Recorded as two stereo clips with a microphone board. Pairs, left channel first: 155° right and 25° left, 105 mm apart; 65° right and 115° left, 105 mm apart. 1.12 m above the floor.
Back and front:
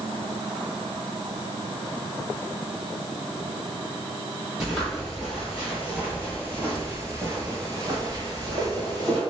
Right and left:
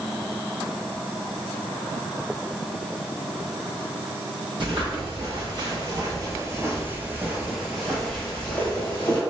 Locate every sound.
4.6 s footsteps: 110° left, 1.9 m; by 9.2 s 10° right, 1.5 m